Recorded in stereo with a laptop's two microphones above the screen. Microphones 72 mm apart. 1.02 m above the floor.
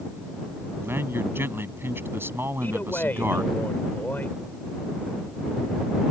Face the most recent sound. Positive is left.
turn(degrees=25)  # may be behind; listen again after turning